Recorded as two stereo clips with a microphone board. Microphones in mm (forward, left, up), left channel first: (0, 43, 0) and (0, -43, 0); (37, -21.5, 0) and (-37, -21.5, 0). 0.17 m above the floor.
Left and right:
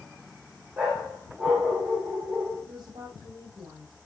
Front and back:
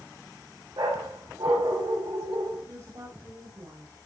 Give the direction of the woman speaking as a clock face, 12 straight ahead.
5 o'clock.